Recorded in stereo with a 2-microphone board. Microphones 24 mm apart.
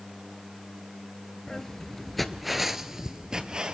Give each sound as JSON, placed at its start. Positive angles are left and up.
{"t": 1.5, "sound": "footsteps", "side_deg": 20, "distance_m": 1.0}